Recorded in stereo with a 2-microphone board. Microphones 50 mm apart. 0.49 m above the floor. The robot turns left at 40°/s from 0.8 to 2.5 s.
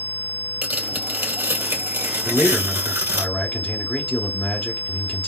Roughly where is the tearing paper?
Ahead right.